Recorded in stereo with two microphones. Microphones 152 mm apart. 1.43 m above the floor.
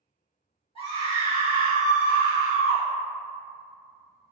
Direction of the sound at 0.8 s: 35° left (ahead or behind).